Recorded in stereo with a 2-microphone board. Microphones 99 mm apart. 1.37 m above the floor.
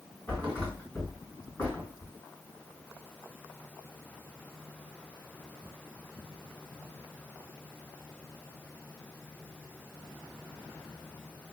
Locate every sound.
0.3 s a thud: 15° left (ahead or behind), 2 m